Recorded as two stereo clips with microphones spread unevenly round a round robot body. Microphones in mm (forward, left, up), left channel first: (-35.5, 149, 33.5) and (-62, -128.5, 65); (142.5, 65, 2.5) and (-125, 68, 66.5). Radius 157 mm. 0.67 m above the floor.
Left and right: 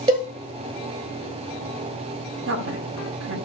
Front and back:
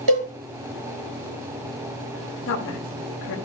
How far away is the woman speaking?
About 1.6 m.